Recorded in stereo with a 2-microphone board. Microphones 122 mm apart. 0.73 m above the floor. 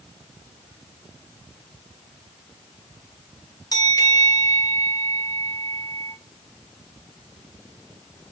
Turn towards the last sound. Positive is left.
turn(degrees=30)  # may be behind; listen again after turning